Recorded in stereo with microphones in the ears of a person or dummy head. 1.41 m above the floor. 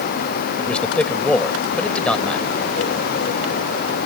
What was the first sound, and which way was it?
A man speaking, 10° left (ahead or behind).